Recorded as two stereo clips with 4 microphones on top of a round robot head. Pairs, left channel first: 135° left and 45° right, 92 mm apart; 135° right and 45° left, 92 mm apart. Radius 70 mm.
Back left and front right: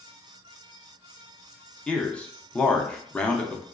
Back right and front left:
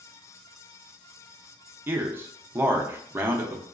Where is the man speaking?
75° left, 0.6 m.